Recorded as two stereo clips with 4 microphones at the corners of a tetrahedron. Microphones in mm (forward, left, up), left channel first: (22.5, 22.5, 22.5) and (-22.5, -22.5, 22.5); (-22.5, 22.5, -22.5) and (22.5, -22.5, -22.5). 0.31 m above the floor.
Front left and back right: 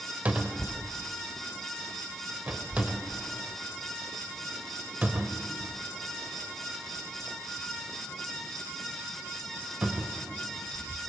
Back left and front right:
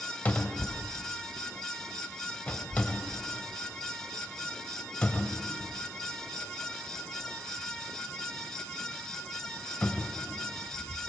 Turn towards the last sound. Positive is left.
turn(degrees=175)